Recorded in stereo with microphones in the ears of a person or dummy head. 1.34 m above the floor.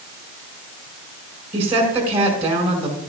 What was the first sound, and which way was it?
A woman speaking, 35° right (ahead or behind).